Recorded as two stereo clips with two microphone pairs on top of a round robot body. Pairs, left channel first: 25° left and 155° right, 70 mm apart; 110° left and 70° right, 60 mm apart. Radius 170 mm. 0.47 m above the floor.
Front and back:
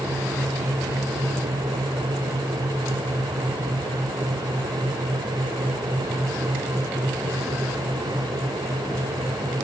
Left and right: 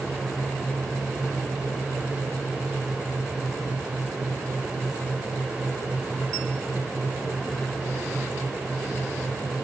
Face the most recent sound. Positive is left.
No sound to turn to.